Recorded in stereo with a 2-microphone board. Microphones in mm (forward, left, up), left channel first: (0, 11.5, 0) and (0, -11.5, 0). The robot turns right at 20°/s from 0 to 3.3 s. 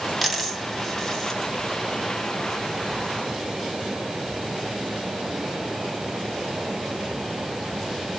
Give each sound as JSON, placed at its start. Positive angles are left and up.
{"t": 0.2, "sound": "a dropped coin", "side_deg": 0, "distance_m": 1.6}